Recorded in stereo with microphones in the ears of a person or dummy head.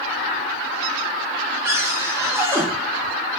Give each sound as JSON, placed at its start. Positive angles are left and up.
{"t": 1.6, "sound": "a cupboard door", "side_deg": -10, "distance_m": 0.5}